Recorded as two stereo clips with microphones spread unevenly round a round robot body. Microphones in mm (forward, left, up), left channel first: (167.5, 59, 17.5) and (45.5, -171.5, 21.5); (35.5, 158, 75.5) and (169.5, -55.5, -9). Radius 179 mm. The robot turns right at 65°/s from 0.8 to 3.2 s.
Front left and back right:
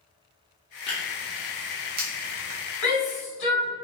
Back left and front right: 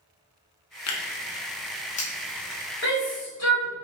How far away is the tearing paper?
About 0.6 m.